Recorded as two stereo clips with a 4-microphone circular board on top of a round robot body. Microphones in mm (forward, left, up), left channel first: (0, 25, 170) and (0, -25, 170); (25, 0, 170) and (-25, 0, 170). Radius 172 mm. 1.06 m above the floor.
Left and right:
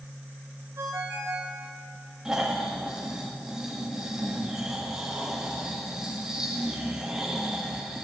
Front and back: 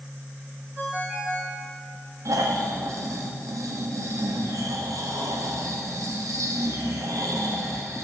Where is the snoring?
170° right, 1.5 m.